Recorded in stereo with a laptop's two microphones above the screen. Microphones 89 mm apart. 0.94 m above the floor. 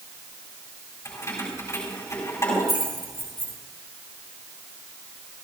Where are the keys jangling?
35° left (ahead or behind), 5 m.